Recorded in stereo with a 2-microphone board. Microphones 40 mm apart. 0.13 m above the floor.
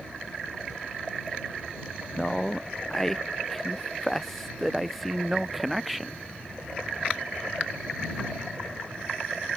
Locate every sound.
2.2 s a man speaking: 15° left (ahead or behind); by 6.2 s centre (ahead or behind)